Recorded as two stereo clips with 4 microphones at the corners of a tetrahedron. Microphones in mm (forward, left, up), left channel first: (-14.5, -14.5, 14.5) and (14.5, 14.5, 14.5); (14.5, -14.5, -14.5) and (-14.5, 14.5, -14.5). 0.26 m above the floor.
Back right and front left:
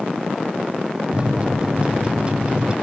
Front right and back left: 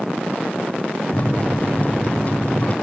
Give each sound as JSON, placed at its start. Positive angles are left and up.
{"t": 1.1, "sound": "a microwave", "azimuth_deg": -5, "distance_m": 1.1}